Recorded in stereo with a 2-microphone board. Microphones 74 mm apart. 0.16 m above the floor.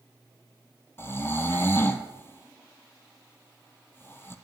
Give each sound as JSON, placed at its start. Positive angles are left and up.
{"t": 1.0, "sound": "snoring", "side_deg": 30, "distance_m": 0.6}